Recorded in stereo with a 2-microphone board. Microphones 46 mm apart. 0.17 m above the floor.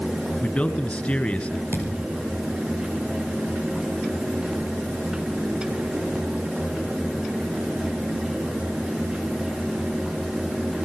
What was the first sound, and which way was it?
A man speaking, 25° left (ahead or behind).